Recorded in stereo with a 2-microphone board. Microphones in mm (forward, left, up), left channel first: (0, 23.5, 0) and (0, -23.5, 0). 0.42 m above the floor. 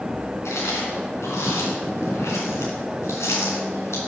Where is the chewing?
75° left (ahead or behind), 3 m.